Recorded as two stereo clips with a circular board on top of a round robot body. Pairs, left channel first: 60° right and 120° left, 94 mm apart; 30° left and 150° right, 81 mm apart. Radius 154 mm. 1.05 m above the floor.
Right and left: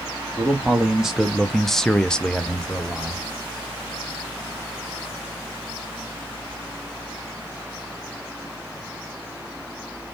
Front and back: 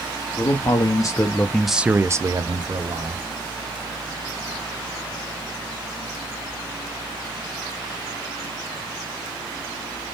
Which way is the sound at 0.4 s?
40° left.